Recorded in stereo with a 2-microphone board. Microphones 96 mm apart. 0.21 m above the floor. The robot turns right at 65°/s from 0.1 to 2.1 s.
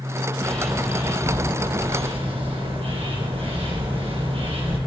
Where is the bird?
165° left, 4 m; by 4.8 s 85° right, 4 m.